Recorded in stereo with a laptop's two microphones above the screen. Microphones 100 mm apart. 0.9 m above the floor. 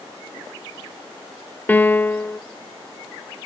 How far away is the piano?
About 0.5 m.